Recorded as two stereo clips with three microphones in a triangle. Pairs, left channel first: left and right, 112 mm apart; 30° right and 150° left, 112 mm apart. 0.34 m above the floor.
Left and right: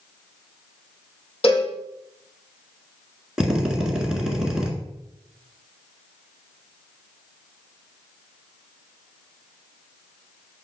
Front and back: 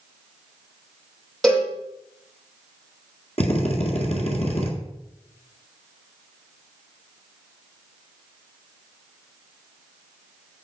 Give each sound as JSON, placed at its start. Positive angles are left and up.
{"t": 1.4, "sound": "a cowbell", "azimuth_deg": 55, "distance_m": 4.5}
{"t": 3.4, "sound": "a drill", "azimuth_deg": -5, "distance_m": 1.7}